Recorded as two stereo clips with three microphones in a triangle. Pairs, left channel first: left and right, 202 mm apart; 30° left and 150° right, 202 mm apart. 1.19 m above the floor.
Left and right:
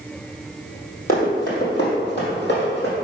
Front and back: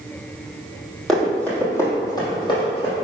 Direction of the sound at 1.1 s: 120° left.